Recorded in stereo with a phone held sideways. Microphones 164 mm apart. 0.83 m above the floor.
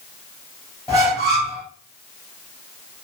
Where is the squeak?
20° right (ahead or behind), 1.6 m.